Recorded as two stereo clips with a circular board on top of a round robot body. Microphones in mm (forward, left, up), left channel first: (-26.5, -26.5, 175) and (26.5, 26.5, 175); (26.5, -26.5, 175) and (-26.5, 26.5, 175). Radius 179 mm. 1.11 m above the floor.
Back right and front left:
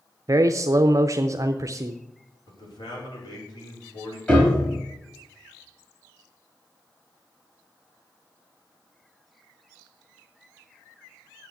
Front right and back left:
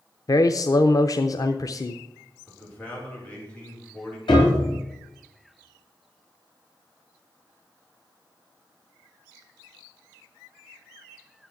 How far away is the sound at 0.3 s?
About 0.6 m.